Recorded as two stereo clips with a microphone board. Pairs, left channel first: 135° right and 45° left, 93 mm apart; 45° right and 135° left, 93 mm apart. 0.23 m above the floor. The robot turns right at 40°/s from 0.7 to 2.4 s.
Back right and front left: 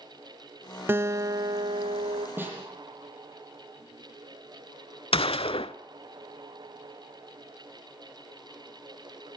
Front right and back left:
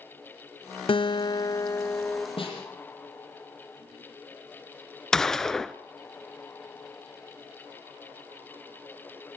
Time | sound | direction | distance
0.9 | a guitar | 20° right | 0.6 m
2.4 | a snare drum | 25° right | 8.5 m
5.1 | a gunshot | 130° right | 0.6 m